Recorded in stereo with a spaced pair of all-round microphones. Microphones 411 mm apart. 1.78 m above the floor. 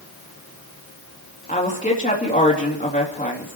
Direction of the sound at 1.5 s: 20° left (ahead or behind).